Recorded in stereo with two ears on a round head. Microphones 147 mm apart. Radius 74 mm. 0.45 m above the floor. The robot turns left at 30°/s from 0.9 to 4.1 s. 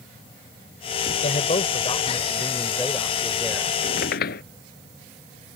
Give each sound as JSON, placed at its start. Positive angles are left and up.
{"t": 1.2, "sound": "a man speaking", "azimuth_deg": 60}
{"t": 3.8, "sound": "a squeak", "side_deg": 60}